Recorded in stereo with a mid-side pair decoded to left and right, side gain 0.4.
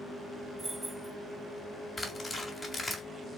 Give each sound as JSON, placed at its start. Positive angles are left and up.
{"t": 0.6, "sound": "keys jangling", "azimuth_deg": -20, "distance_m": 1.0}
{"t": 2.0, "sound": "tearing paper", "azimuth_deg": 25, "distance_m": 1.6}